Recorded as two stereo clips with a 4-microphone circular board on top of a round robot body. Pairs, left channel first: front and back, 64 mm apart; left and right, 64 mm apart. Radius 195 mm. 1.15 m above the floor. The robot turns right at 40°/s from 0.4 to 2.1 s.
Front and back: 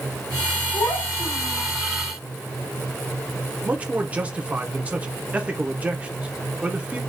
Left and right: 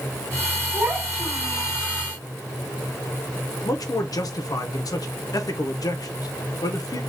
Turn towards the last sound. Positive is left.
turn(degrees=110)